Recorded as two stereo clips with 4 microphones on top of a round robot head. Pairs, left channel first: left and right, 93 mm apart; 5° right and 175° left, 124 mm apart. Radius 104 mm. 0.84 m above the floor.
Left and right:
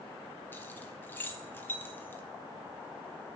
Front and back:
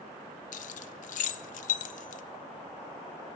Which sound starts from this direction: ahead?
Keys jangling, at 0.5 s.